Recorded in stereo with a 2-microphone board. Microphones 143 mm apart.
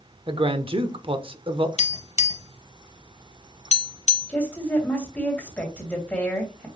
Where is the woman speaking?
10° left (ahead or behind), 2.5 m.